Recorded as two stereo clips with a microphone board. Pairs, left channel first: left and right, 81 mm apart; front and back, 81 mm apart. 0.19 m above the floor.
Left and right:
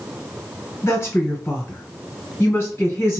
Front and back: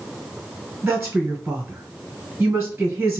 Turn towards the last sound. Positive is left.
turn(degrees=120)